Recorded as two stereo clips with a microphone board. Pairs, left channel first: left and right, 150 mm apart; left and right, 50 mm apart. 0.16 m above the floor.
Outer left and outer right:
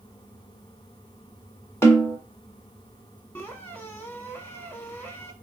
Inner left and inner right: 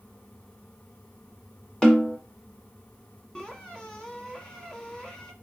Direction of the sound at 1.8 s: 20° left (ahead or behind).